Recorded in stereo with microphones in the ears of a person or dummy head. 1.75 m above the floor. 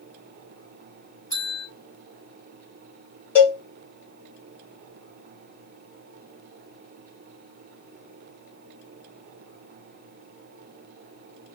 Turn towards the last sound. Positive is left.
turn(degrees=15)  # may be behind; listen again after turning